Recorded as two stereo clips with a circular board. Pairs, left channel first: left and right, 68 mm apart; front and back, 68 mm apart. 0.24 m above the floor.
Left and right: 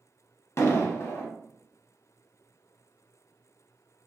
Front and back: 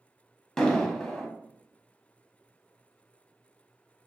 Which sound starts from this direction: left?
An explosion, at 0.6 s.